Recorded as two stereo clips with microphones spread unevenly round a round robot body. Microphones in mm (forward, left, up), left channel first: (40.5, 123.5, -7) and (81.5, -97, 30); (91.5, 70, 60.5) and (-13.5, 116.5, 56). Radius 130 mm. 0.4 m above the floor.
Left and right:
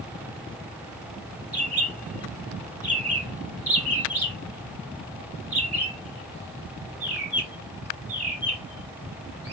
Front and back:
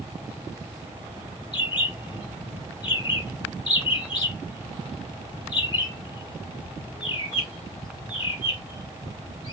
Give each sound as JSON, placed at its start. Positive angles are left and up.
{"t": 1.5, "sound": "a bird", "azimuth_deg": 10, "distance_m": 1.6}